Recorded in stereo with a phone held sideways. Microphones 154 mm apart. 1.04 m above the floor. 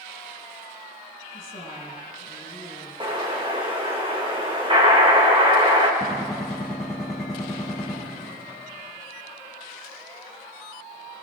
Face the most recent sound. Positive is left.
turn(degrees=5)  # may be behind; listen again after turning